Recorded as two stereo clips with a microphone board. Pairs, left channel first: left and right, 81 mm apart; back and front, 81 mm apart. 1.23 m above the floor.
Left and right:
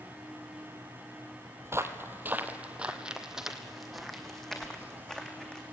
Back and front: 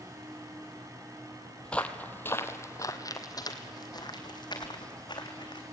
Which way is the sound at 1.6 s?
110° right.